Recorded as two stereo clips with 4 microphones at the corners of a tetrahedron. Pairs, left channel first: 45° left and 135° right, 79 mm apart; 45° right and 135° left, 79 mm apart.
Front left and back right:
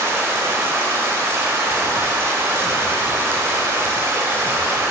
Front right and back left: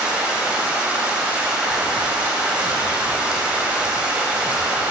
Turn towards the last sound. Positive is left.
turn(degrees=-165)